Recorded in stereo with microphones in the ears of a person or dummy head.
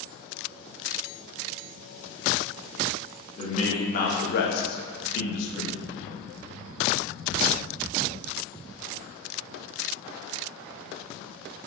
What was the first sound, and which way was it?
A man speaking, 30° left (ahead or behind).